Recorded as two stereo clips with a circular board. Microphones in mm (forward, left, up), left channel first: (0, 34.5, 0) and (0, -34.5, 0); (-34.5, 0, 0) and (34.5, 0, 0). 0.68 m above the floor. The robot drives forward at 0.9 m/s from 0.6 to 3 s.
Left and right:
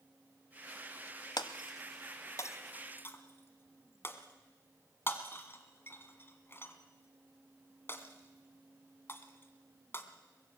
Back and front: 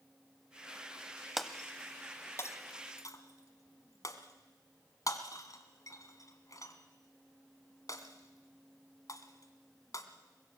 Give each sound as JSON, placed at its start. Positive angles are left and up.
{"t": 1.4, "sound": "breaking glass", "azimuth_deg": 85, "distance_m": 1.0}